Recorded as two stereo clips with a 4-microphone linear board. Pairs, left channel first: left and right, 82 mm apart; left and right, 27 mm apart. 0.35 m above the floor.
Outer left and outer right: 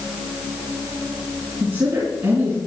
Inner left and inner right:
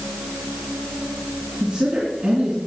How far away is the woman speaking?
About 5 m.